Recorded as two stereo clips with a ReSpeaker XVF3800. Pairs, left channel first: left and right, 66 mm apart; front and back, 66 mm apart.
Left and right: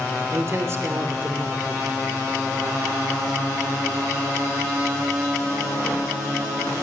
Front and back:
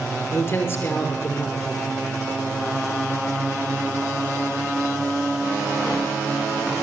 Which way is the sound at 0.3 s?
45° right.